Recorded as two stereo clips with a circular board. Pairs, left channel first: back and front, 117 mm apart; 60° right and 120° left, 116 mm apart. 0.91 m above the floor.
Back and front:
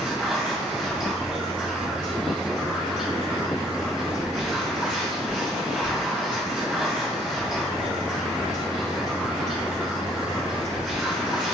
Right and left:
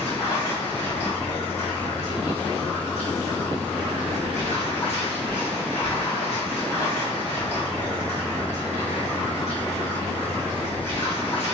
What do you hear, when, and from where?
0.0 s running water: 85° right, 1.6 m